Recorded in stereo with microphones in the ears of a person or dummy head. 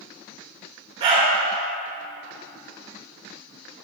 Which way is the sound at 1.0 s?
35° right (ahead or behind).